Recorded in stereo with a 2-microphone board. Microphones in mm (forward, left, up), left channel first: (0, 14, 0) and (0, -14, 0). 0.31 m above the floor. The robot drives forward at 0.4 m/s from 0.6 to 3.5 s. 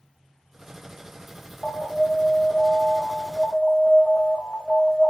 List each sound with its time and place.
1.6 s an alarm: 30° left (ahead or behind), 1.2 m; by 5.1 s 25° left (ahead or behind), 1.6 m